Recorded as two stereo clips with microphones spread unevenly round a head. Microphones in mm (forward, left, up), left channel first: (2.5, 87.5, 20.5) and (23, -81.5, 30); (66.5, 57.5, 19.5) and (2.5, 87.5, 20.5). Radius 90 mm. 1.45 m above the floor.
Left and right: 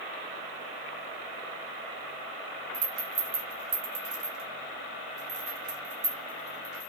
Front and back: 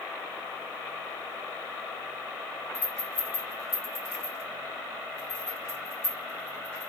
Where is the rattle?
80° right, 0.9 m.